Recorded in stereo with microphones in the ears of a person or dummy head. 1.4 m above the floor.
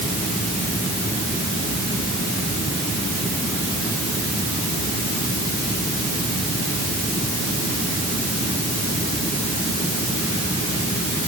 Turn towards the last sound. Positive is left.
No sound to turn to.